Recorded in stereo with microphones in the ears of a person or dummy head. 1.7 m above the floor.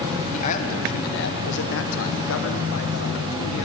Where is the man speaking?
40° left (ahead or behind), 1.3 m; by 3.7 s 70° left (ahead or behind), 1.9 m.